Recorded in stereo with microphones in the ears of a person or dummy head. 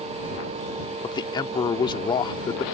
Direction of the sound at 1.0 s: 25° left (ahead or behind).